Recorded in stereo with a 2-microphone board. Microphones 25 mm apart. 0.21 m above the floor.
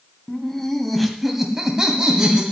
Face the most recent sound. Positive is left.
turn(degrees=-35)  # may be behind; listen again after turning